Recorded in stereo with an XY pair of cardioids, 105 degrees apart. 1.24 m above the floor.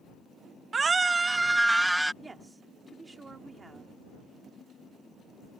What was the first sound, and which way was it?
A scream, 35° right.